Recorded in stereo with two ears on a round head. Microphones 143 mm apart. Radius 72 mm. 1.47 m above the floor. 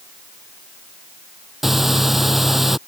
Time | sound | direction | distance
1.6 | breathing | centre (ahead or behind) | ?